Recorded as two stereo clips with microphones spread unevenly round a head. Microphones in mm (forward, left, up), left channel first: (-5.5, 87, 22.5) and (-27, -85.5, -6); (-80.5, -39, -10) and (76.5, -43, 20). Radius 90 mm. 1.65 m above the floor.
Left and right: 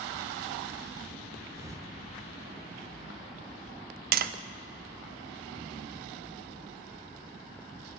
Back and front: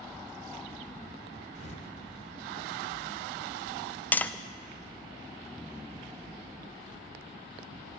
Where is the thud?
170° right, 1.4 m.